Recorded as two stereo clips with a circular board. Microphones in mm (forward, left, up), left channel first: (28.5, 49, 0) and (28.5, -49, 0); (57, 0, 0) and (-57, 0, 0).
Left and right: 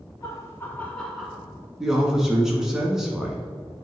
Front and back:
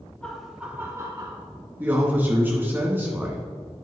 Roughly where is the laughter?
Left.